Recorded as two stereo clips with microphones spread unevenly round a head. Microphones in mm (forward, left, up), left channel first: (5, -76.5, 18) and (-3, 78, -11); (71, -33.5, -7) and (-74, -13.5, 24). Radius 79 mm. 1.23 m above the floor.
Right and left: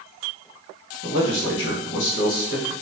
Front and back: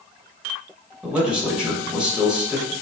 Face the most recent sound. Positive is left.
turn(degrees=-105)